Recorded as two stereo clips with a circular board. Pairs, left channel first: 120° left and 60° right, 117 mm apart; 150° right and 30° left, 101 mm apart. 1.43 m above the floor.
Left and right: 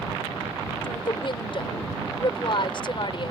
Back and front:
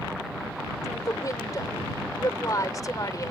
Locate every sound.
0.8 s a woman speaking: 160° left